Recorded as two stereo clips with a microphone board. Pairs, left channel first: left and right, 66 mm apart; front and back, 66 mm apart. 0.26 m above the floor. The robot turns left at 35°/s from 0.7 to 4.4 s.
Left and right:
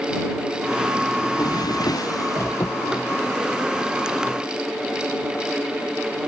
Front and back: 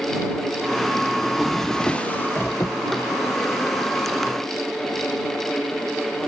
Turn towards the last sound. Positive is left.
turn(degrees=-10)